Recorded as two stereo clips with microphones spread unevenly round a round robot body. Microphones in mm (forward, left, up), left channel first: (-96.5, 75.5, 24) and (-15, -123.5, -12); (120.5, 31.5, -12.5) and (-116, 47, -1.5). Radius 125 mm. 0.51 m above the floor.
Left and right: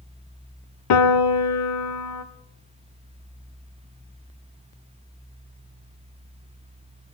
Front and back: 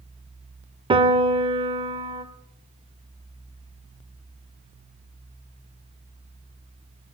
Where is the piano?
105° left, 0.7 m.